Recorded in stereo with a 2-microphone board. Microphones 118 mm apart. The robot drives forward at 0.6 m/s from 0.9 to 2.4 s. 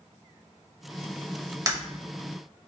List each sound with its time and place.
1.7 s breaking glass: 30° right (ahead or behind), 1.0 m